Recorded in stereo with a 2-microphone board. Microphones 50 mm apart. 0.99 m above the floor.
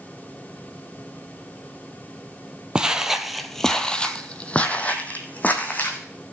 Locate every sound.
2.8 s footsteps: 15° right (ahead or behind), 1.0 m; by 6.0 s 35° left (ahead or behind), 2.5 m